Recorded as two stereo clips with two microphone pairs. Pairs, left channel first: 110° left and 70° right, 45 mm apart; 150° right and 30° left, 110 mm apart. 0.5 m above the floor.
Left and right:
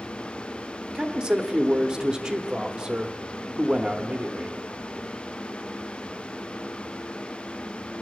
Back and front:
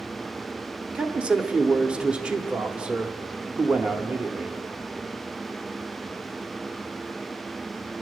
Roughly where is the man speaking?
Ahead right.